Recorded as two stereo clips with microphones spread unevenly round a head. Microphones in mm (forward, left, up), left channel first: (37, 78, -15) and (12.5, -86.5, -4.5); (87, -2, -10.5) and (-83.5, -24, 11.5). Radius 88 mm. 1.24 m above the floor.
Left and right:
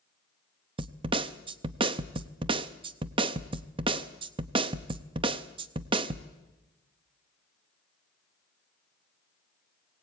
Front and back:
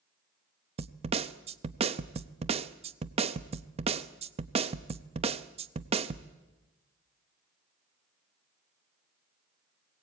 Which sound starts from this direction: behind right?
A snare drum, at 0.8 s.